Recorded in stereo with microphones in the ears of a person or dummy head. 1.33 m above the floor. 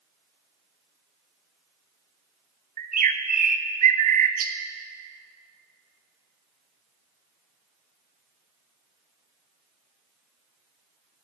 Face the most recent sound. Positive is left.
turn(degrees=-45)  # may be behind; listen again after turning